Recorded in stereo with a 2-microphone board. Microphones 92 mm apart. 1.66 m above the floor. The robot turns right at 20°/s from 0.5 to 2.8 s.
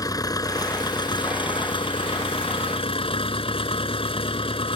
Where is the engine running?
45° left; by 4.8 s 90° left.